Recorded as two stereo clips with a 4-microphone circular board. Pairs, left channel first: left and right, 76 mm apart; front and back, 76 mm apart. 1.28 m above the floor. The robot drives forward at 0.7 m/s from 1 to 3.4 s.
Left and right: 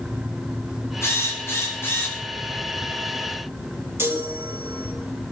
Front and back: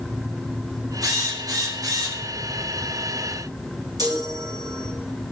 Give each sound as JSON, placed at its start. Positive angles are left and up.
{"t": 1.0, "sound": "a drill", "azimuth_deg": 145, "distance_m": 5.5}
{"t": 4.0, "sound": "a chime", "azimuth_deg": -150, "distance_m": 3.0}